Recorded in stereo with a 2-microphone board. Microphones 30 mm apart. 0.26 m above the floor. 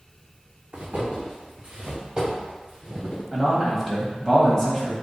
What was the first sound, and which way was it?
Footsteps, 35° right (ahead or behind).